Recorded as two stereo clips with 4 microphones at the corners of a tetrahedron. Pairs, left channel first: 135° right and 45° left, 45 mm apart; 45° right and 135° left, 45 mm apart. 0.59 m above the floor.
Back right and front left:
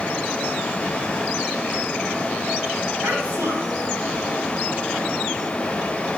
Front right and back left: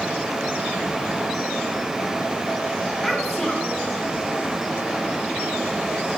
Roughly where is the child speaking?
Ahead left.